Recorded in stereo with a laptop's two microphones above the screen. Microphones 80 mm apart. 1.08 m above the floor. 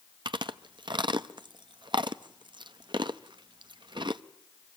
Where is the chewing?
75° right (ahead or behind), 0.6 m.